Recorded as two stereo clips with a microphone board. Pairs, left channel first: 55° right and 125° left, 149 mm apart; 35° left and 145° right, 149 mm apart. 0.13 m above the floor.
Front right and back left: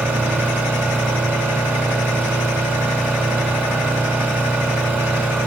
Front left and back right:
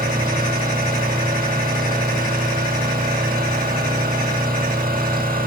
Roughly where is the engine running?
Behind right.